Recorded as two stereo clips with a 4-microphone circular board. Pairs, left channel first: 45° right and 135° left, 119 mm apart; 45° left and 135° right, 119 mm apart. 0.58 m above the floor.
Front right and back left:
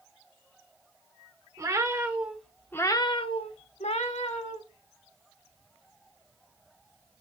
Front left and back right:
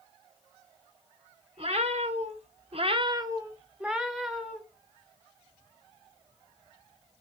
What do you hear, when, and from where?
1.6 s a cat meowing: 165° right, 0.9 m; by 4.6 s 40° right, 1.1 m